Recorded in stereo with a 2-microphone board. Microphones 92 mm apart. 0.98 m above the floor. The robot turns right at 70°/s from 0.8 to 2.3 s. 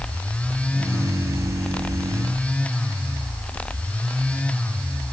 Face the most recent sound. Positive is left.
No sound to turn to.